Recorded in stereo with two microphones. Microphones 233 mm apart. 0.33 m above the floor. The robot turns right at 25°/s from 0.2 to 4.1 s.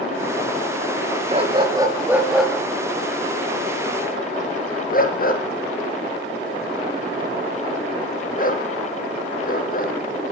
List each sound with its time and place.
1.3 s a dog barking: 30° right (ahead or behind), 2 m; by 9.9 s 40° left (ahead or behind), 2 m